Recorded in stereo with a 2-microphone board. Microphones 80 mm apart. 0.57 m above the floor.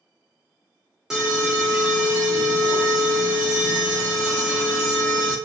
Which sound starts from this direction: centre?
An alarm, at 1.1 s.